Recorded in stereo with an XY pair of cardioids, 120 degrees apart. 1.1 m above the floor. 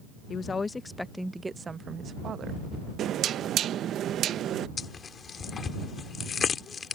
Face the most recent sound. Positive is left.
turn(degrees=40)